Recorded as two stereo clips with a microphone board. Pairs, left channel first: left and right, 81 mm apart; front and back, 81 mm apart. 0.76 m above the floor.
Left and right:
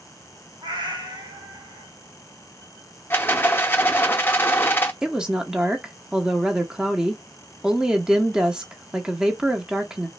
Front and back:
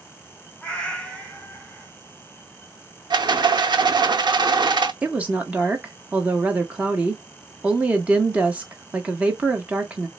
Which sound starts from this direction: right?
A cat meowing, at 0.6 s.